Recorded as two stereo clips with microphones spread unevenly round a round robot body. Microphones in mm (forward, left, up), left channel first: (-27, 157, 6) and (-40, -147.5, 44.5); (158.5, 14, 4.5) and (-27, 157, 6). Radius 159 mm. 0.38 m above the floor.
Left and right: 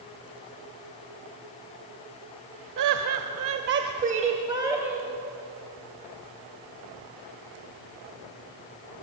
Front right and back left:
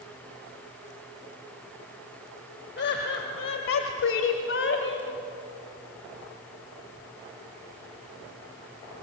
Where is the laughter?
80° right, 1.6 m; by 5.1 s 5° right, 2.5 m.